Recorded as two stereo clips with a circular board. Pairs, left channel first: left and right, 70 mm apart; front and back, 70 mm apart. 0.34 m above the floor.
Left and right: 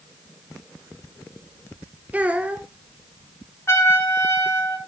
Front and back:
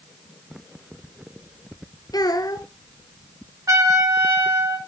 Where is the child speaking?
20° right, 2.5 m.